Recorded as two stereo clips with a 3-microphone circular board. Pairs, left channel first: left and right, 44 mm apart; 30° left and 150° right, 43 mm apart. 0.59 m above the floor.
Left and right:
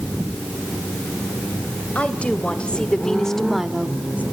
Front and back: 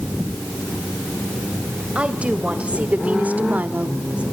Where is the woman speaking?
150° left, 3 m; by 4.2 s 105° right, 1.2 m.